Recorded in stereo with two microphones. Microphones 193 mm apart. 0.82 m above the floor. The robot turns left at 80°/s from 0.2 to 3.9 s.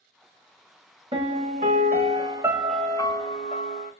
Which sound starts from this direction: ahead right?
A piano, at 1.1 s.